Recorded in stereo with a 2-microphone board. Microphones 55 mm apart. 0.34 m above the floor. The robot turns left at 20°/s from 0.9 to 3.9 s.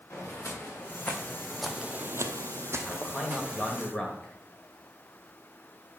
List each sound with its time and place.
0.1 s footsteps: 40° left (ahead or behind), 2.5 m; by 3.9 s 10° right (ahead or behind), 2 m
2.9 s a man speaking: centre (ahead or behind), 1.7 m; by 4.3 s 10° left (ahead or behind), 1.7 m